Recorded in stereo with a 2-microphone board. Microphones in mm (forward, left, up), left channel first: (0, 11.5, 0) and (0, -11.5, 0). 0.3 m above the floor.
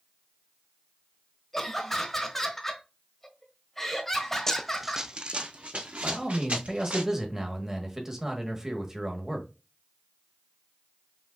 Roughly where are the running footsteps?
Left.